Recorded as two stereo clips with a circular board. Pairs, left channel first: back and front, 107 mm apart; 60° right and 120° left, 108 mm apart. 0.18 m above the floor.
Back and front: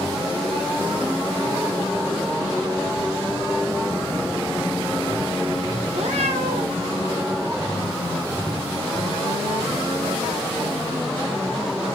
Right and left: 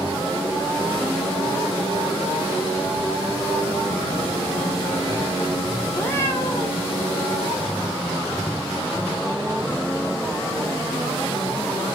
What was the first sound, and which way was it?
A cat meowing, 10° left.